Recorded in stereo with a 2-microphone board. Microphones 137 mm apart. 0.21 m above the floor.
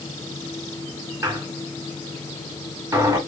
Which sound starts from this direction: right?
A squeak, at 1.2 s.